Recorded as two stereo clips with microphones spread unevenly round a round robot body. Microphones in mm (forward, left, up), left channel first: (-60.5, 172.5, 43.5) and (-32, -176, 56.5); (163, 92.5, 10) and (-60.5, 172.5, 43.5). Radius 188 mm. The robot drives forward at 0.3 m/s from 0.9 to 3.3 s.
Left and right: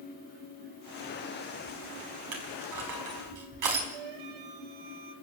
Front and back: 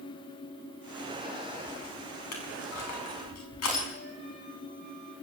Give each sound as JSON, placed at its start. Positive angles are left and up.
{"t": 2.3, "sound": "crushing", "azimuth_deg": -45, "distance_m": 5.0}
{"t": 3.9, "sound": "a flute", "azimuth_deg": -95, "distance_m": 2.0}